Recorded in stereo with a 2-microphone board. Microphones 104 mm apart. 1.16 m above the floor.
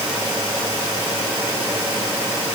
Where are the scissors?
No scissors in this recording.